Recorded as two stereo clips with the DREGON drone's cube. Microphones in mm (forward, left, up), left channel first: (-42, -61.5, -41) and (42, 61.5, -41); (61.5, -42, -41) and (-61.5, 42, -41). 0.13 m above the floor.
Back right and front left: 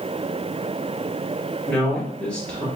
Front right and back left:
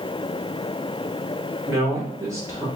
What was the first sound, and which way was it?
A man speaking, 165° left.